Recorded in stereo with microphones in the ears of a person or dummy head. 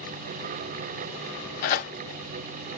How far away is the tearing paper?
About 1.8 m.